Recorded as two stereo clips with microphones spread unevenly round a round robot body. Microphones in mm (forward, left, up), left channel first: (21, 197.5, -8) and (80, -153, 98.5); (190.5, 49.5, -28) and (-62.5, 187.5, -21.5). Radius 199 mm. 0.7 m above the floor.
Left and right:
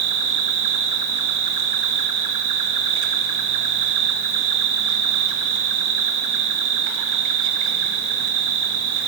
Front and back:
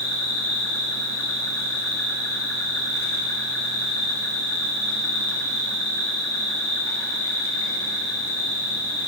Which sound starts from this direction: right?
An insect, at 0.0 s.